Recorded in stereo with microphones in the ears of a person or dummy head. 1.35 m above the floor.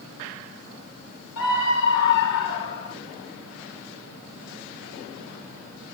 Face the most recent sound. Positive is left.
turn(degrees=65)  # may be behind; listen again after turning